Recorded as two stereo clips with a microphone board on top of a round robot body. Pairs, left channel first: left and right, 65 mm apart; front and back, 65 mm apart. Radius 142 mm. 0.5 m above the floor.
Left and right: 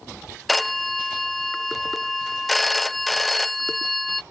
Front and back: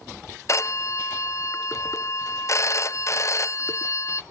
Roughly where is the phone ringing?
Ahead.